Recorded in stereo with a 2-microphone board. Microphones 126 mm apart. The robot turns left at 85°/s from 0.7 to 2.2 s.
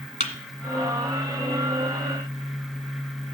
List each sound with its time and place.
0.2 s a thud: 75° left (ahead or behind), 1.8 m